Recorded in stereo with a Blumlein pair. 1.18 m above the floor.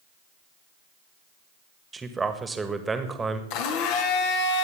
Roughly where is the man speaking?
Ahead.